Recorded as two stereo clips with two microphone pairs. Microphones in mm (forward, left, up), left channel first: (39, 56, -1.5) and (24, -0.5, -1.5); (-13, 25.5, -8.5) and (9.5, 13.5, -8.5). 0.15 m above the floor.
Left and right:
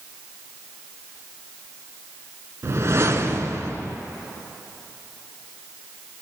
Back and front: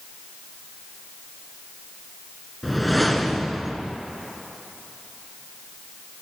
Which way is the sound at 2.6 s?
115° right.